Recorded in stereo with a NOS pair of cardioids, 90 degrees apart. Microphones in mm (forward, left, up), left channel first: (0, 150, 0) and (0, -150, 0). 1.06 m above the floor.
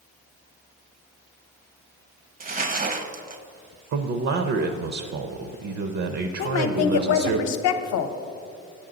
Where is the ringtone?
I don't hear a ringtone.